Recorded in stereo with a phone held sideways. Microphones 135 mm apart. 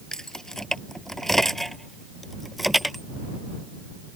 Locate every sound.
0.1 s keys jangling: 5° left (ahead or behind); by 3.0 s centre (ahead or behind)